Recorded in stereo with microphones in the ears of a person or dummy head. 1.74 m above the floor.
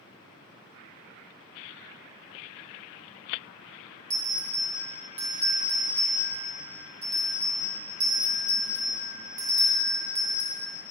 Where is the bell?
20° right (ahead or behind), 1.6 m.